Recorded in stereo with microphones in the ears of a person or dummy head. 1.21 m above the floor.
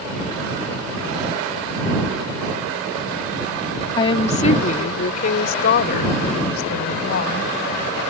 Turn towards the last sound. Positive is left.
turn(degrees=55)  # may be behind; listen again after turning